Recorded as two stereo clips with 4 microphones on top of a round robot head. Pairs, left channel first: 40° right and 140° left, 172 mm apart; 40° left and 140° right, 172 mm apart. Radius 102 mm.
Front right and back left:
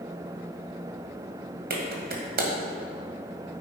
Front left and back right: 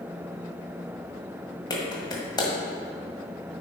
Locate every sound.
1.7 s a clap: 110° left, 1.7 m